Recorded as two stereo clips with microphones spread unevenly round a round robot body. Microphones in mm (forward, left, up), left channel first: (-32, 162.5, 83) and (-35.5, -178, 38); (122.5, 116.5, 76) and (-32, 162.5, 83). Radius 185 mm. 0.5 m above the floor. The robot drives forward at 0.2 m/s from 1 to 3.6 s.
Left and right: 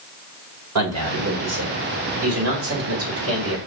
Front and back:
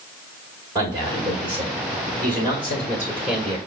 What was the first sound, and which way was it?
A man speaking, 125° right.